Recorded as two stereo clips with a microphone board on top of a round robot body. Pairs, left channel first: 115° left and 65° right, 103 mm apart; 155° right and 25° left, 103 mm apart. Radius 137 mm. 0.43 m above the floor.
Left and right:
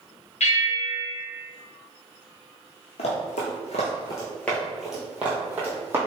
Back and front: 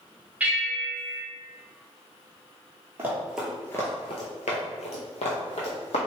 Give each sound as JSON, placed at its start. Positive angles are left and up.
{"t": 0.4, "sound": "a bell", "azimuth_deg": 100, "distance_m": 0.8}
{"t": 3.0, "sound": "running footsteps", "azimuth_deg": 90, "distance_m": 0.8}